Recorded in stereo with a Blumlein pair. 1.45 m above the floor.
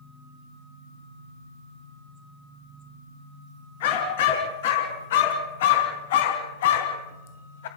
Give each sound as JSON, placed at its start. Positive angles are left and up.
{"t": 3.8, "sound": "a dog barking", "azimuth_deg": 55, "distance_m": 4.0}